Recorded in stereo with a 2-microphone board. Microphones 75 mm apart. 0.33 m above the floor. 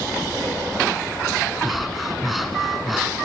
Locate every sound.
1.6 s breathing: centre (ahead or behind), 2.5 m